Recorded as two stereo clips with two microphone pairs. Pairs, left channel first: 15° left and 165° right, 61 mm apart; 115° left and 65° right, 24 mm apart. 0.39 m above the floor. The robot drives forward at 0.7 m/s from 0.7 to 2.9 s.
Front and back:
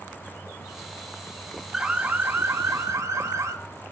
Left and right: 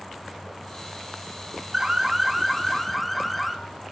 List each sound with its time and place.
1.7 s an alarm: 90° right, 0.7 m; by 3.5 s 160° right, 1.1 m